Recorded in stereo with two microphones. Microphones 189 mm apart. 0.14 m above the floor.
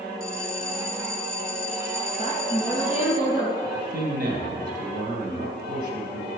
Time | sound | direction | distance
0.2 | a bell | 50° left (ahead or behind) | 0.8 m
2.2 | a woman speaking | 30° left (ahead or behind) | 3 m
3.6 | a man speaking | 50° right (ahead or behind) | 3 m